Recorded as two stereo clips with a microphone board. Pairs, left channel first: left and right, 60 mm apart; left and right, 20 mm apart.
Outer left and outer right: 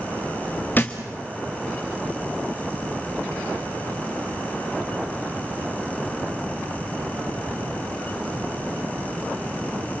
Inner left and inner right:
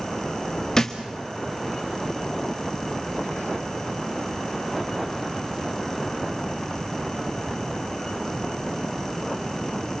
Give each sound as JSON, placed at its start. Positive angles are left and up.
{"t": 0.8, "sound": "a thud", "side_deg": 30, "distance_m": 1.6}